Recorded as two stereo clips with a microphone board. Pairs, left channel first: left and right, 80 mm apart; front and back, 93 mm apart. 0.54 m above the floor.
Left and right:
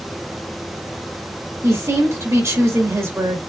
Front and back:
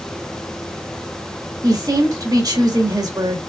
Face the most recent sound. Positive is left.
turn(degrees=-140)